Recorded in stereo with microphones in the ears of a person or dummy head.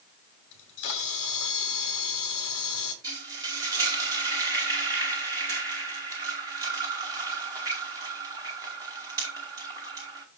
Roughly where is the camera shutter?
Left.